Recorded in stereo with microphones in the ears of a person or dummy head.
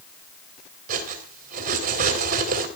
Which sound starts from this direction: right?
Cutlery clinking, at 0.9 s.